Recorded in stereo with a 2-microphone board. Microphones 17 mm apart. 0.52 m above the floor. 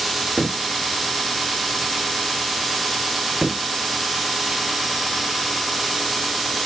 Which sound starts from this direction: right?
A cupboard door, at 0.4 s.